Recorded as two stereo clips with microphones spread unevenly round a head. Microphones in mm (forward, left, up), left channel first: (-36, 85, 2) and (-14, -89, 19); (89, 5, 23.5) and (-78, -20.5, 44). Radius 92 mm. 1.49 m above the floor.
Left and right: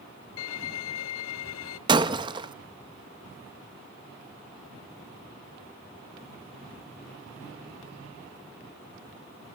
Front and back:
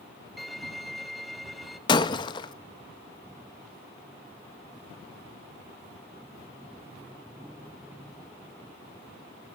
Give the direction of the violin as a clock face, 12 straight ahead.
9 o'clock.